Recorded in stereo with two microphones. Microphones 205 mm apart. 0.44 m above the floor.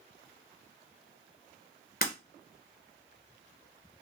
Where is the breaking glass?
50° left (ahead or behind), 1.7 m.